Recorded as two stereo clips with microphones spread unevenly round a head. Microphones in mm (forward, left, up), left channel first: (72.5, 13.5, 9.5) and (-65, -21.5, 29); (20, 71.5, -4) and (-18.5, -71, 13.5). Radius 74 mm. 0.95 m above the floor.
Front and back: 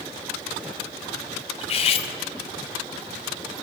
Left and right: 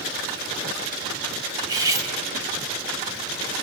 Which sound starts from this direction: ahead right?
Cutlery clinking, at 1.6 s.